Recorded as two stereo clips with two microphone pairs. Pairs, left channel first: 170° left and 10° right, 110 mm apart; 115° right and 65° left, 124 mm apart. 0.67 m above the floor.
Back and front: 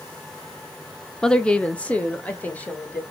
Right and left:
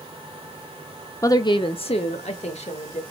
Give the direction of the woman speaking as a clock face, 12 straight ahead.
4 o'clock.